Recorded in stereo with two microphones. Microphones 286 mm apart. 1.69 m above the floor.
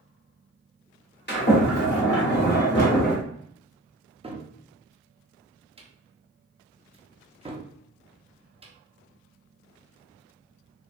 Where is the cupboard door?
20° right (ahead or behind), 0.6 m.